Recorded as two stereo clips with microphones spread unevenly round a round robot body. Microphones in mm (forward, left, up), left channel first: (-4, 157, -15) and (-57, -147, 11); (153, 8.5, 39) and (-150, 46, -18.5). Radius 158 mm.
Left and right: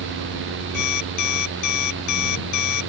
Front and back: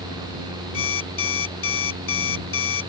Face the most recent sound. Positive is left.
turn(degrees=40)